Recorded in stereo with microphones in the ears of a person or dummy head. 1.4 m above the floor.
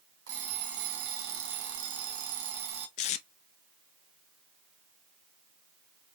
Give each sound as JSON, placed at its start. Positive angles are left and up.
{"t": 0.3, "sound": "an alarm clock", "side_deg": -70, "distance_m": 1.3}
{"t": 3.0, "sound": "tape being pulled", "side_deg": 40, "distance_m": 0.6}